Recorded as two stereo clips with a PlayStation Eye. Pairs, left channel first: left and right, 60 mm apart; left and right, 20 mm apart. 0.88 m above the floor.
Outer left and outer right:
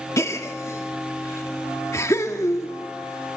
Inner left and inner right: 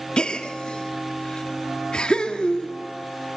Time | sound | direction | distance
0.2 | a gasp | 55° left (ahead or behind) | 1.6 m